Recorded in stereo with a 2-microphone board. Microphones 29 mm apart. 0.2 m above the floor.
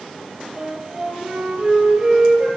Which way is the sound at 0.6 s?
25° right (ahead or behind).